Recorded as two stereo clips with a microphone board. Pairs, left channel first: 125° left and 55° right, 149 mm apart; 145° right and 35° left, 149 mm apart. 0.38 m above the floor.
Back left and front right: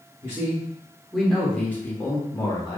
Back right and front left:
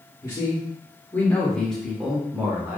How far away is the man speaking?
About 1.2 m.